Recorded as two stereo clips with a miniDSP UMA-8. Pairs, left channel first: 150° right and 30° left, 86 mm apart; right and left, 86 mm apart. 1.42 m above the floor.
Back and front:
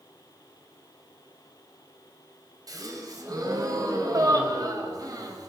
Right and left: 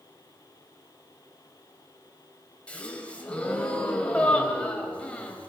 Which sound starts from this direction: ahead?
A gasp, at 2.7 s.